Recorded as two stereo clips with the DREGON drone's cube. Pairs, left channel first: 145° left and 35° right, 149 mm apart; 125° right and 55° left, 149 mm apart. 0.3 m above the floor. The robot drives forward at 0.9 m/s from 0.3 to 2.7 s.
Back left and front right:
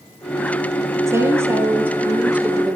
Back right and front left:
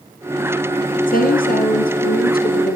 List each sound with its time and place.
1.1 s a woman speaking: 105° right, 6.5 m; by 2.8 s 115° right, 7 m